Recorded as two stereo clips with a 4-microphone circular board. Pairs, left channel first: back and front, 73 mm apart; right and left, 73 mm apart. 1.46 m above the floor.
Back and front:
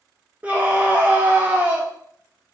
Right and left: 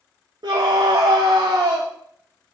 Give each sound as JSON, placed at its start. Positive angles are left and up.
{"t": 0.4, "sound": "a scream", "azimuth_deg": 70, "distance_m": 0.8}